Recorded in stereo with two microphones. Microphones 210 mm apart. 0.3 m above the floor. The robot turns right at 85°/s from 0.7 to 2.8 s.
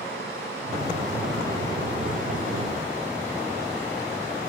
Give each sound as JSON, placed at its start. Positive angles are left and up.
{"t": 0.0, "sound": "running water", "azimuth_deg": -50, "distance_m": 4.0}